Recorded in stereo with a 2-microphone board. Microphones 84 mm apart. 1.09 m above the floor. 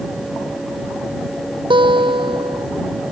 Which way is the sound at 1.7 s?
75° right (ahead or behind).